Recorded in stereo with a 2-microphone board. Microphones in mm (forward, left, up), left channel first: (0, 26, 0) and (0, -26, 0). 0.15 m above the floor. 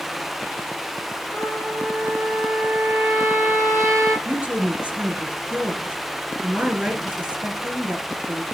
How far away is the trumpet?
About 5.5 m.